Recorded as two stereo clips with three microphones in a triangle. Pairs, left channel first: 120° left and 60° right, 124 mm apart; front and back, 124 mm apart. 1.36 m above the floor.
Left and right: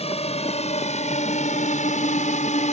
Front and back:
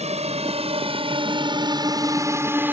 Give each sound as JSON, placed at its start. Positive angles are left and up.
{"t": 0.0, "sound": "a drone", "azimuth_deg": 150}